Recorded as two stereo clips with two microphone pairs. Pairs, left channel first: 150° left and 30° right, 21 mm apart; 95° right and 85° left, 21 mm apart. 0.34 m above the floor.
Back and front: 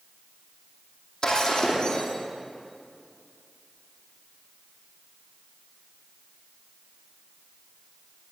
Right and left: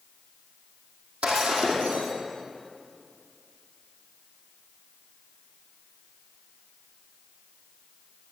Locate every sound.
1.2 s breaking glass: 95° left, 4.5 m